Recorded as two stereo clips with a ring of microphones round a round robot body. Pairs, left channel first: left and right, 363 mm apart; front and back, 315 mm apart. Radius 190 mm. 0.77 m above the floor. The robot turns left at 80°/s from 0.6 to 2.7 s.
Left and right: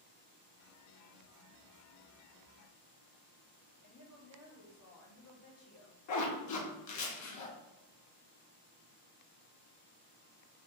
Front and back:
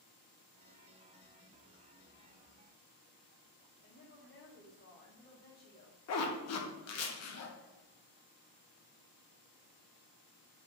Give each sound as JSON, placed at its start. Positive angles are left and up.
{"t": 3.8, "sound": "a woman speaking", "azimuth_deg": 45, "distance_m": 1.4}
{"t": 6.1, "sound": "a zipper", "azimuth_deg": 45, "distance_m": 0.8}